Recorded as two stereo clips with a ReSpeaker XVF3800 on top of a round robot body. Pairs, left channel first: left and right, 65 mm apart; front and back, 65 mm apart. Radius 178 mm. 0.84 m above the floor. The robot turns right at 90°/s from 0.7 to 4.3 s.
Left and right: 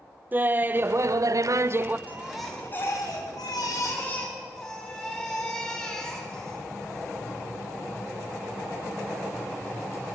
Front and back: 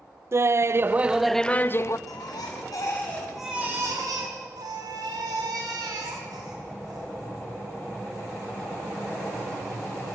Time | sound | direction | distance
0.3 | laughter | 145° right | 0.7 m
2.1 | a baby crying | 30° right | 4.5 m